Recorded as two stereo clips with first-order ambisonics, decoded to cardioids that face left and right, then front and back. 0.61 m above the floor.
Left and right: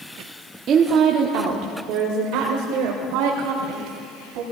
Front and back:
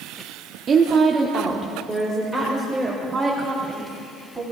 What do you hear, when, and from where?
0.7 s a woman speaking: 125° right, 0.9 m; by 4.4 s 95° right, 3.5 m